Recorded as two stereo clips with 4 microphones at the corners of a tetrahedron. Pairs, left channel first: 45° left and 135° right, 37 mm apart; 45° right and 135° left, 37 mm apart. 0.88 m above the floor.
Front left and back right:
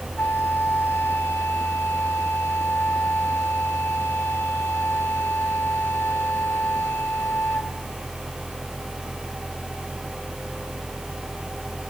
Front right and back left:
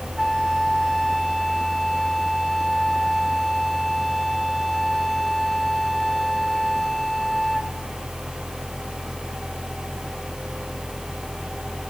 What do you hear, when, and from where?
0.2 s a flute: 35° left, 1.5 m